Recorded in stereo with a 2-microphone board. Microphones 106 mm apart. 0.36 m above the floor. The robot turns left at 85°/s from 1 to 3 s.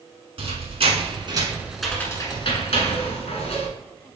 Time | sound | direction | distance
0.4 | a squeak | 70° right (ahead or behind) | 1.1 m